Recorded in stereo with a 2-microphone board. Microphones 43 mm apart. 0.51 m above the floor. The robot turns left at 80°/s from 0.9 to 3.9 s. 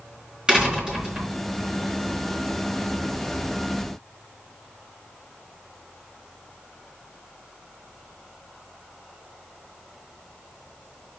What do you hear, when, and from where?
0.5 s a door slam: 15° right, 4.5 m; by 1.3 s 55° right, 4.5 m